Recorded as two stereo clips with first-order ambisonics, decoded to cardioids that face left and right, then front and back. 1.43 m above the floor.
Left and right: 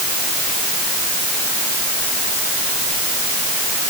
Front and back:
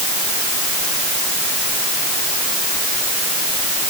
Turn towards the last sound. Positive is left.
No sound to turn to.